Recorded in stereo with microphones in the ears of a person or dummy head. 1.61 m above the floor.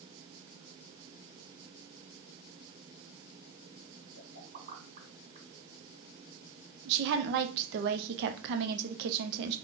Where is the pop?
35° right (ahead or behind), 1.9 m.